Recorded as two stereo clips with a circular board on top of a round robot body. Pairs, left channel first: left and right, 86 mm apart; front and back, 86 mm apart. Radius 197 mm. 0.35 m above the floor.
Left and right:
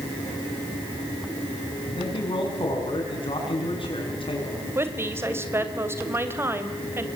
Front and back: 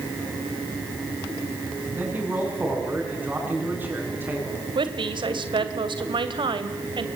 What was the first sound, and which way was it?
A man speaking, 110° left.